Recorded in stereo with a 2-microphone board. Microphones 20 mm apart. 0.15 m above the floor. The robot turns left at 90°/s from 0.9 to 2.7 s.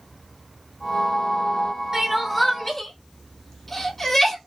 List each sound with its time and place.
1.9 s crying: 25° right (ahead or behind), 0.9 m; by 4.4 s 20° left (ahead or behind), 0.9 m